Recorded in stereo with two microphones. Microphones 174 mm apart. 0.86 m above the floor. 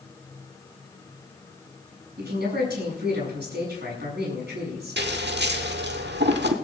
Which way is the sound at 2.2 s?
75° right (ahead or behind).